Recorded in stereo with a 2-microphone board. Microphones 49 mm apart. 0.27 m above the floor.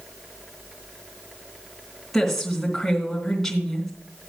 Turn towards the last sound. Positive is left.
turn(degrees=5)  # may be behind; listen again after turning